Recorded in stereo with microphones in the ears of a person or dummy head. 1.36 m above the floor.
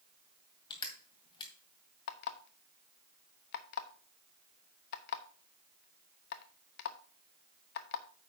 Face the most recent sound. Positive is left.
turn(degrees=50)  # may be behind; listen again after turning